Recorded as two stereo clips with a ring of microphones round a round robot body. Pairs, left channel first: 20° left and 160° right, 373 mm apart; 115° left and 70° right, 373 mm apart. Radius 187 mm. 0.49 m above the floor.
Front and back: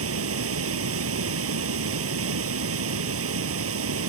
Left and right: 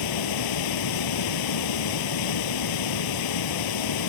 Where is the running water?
145° left.